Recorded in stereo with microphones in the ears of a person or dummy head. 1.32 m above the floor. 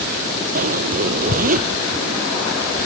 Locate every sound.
0.6 s a zipper: 45° right (ahead or behind)